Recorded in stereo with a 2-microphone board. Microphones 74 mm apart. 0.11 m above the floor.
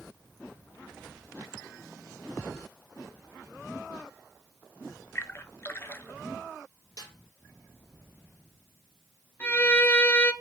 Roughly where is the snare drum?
Left.